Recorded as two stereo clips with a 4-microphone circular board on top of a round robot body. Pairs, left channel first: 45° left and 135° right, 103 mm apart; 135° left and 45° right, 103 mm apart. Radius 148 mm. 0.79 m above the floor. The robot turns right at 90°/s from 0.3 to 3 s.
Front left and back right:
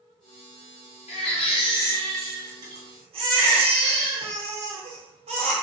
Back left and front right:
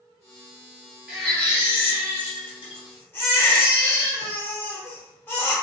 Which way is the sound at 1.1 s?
35° left.